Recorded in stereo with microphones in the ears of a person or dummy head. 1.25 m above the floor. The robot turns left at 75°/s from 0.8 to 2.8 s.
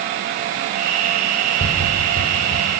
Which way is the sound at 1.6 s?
40° left (ahead or behind).